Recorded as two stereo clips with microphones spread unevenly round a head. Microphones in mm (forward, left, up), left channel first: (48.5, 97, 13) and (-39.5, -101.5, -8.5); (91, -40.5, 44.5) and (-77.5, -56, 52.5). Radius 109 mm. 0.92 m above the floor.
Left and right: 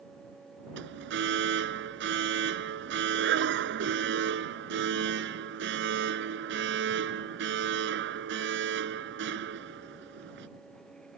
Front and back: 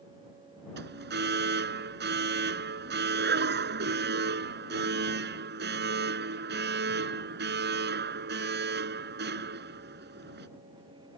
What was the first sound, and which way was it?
An alarm, 155° right.